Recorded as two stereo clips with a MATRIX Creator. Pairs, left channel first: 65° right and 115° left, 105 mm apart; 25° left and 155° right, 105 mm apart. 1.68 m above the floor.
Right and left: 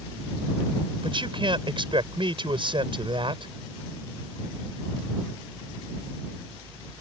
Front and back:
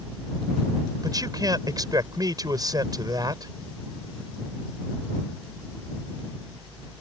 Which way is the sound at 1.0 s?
150° left.